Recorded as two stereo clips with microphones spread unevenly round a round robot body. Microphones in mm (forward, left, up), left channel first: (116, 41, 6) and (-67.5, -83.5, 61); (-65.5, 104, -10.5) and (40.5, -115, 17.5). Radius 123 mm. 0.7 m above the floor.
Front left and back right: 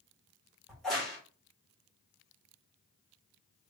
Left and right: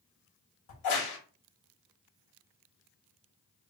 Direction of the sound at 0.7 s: 120° left.